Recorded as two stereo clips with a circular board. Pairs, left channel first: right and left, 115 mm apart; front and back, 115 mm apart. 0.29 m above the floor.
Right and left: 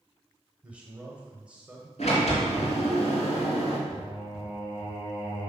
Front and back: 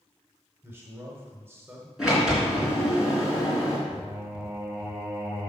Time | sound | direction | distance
0.6 | a man speaking | 150° left | 1.4 m
2.0 | a sliding door | 95° right | 3.5 m
3.9 | singing | 100° right | 3 m